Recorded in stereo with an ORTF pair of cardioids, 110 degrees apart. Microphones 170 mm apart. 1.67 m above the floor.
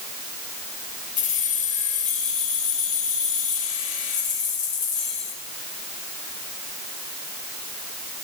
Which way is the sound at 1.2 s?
55° left.